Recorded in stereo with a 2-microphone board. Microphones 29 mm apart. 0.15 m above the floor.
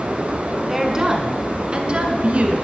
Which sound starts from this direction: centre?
A woman speaking, at 0.7 s.